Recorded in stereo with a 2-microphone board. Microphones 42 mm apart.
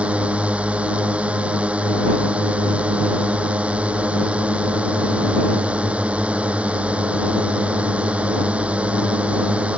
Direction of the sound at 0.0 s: 30° right (ahead or behind).